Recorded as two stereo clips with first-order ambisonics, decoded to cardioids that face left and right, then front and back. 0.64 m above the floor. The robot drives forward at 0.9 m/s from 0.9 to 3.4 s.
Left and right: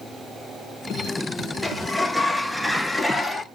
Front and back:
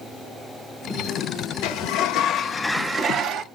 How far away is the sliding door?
About 1.2 m.